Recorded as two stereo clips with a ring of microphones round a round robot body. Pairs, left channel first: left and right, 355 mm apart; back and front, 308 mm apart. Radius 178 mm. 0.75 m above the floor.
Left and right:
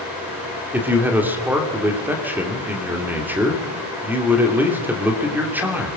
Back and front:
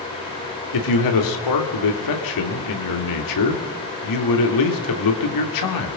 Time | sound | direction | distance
0.7 | a man speaking | 175° right | 2.5 m